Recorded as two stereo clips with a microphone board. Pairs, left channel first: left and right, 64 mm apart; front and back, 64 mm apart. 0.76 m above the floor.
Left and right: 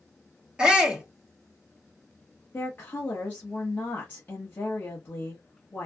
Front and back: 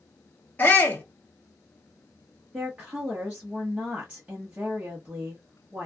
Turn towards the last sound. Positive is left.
turn(degrees=130)